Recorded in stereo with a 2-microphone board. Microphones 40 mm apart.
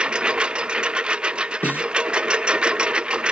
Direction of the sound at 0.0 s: 25° right (ahead or behind).